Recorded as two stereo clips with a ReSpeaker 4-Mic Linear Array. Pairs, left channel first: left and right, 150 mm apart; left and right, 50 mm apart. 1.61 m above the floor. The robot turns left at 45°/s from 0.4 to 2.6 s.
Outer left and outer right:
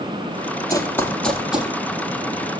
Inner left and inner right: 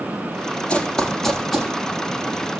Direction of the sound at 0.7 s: 20° left (ahead or behind).